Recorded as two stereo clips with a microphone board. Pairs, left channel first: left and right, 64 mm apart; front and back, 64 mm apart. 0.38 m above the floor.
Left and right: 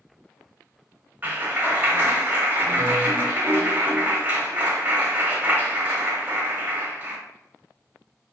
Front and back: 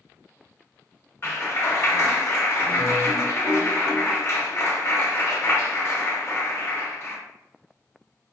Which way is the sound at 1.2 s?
35° right.